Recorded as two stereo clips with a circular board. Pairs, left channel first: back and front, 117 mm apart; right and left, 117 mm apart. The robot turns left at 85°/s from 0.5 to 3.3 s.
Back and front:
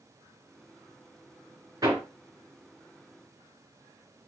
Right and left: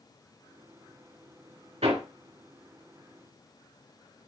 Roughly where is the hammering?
Ahead left.